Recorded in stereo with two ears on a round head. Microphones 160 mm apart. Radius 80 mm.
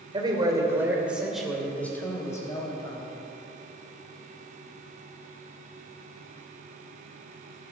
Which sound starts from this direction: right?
A man speaking, at 0.1 s.